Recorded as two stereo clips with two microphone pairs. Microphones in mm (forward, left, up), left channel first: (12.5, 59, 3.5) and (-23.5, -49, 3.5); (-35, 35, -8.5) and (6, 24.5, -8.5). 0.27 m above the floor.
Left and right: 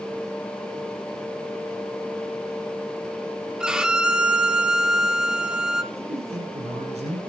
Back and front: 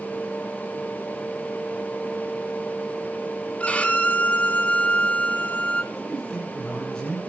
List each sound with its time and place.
3.6 s a violin: 175° left, 1.3 m
5.9 s a man speaking: 120° right, 8.5 m